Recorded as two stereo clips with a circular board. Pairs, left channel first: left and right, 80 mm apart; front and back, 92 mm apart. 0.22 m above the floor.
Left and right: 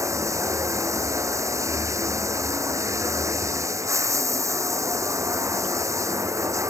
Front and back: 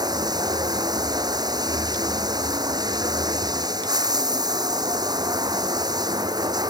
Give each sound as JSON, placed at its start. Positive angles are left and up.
{"t": 0.0, "sound": "running water", "azimuth_deg": -140}